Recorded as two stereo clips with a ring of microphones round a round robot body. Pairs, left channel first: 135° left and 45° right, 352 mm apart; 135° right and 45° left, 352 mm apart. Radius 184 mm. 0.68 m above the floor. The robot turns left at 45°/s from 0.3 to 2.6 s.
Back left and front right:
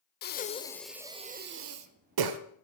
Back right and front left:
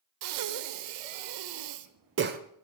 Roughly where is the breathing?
Left.